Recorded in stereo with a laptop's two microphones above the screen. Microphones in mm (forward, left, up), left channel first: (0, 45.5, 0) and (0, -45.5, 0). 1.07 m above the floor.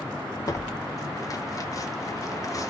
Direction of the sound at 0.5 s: 40° left (ahead or behind).